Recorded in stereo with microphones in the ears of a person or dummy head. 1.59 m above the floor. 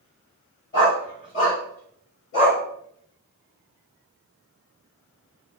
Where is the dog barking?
15° left (ahead or behind), 1.5 m; by 2.6 s 50° left (ahead or behind), 1.6 m.